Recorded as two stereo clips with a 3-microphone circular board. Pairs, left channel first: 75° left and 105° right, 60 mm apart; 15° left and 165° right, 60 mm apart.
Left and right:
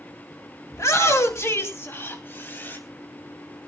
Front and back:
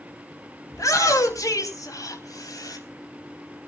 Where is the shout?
45° left, 3.5 m; by 2.8 s 20° left, 3 m.